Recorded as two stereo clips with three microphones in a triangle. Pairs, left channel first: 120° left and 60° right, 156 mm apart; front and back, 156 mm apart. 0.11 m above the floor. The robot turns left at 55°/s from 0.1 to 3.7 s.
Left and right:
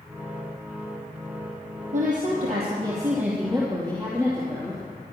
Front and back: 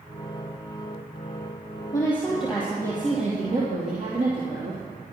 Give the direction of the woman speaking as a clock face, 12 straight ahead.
2 o'clock.